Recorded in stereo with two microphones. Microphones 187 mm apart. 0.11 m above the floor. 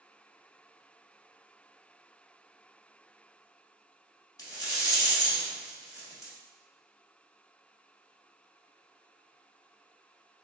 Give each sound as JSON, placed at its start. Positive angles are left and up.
{"t": 4.4, "sound": "a rattle", "side_deg": 20, "distance_m": 1.0}